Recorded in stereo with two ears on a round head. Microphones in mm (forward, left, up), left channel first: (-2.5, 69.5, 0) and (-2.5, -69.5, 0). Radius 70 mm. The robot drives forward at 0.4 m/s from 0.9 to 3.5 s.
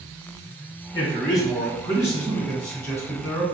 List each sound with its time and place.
0.9 s a man speaking: 25° left (ahead or behind), 1.6 m; by 3.4 s 15° left (ahead or behind), 2.5 m